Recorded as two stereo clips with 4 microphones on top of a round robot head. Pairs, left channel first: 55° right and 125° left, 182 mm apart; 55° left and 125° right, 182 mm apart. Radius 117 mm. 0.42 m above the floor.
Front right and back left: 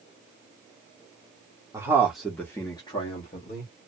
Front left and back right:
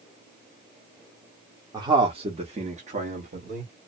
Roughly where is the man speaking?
Behind.